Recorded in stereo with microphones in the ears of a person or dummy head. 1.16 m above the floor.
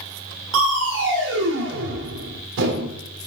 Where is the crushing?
65° right (ahead or behind), 1.5 m.